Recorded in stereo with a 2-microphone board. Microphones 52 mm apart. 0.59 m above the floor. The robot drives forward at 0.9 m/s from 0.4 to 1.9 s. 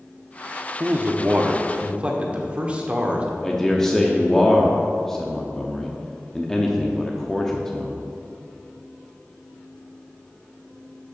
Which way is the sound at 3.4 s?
10° left (ahead or behind).